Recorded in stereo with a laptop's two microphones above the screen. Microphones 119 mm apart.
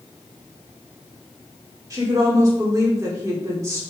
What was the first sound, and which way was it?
A woman speaking, 30° right (ahead or behind).